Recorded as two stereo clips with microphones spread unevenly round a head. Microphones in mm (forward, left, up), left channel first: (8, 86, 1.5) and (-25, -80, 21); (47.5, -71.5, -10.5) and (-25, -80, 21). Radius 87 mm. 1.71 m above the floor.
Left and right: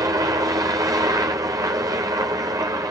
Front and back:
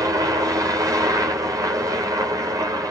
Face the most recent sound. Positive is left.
turn(degrees=-155)